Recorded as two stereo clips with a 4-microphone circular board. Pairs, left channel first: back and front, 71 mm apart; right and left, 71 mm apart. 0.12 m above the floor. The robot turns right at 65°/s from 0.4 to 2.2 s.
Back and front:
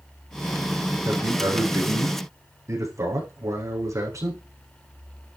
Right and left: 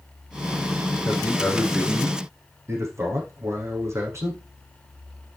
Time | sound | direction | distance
1.1 | a man speaking | 35° right | 7 m